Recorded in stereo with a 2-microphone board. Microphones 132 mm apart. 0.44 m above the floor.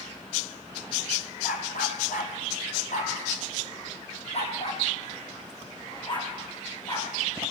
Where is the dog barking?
85° left, 3.5 m; by 7.5 s 30° left (ahead or behind), 7 m.